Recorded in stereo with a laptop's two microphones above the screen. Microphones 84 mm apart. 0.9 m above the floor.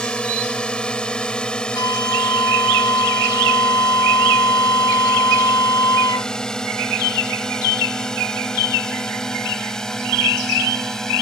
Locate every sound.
0.0 s a drone: 10° left (ahead or behind); by 11.2 s 5° left (ahead or behind)
1.8 s a flute: 60° left (ahead or behind)